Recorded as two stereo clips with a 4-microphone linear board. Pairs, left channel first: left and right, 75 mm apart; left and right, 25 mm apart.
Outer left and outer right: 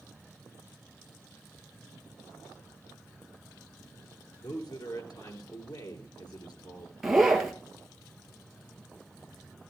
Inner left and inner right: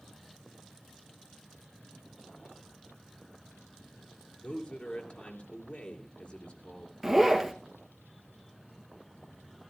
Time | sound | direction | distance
4.4 | a man speaking | 60° left (ahead or behind) | 3.5 m
7.0 | a zipper | 5° right (ahead or behind) | 2 m